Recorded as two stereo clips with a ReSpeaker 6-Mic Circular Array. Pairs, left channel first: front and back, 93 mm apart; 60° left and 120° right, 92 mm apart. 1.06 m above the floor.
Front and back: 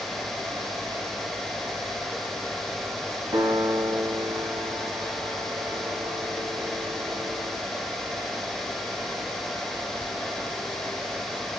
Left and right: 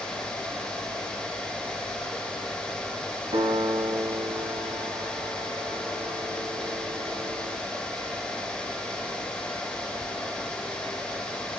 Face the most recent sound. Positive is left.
turn(degrees=-135)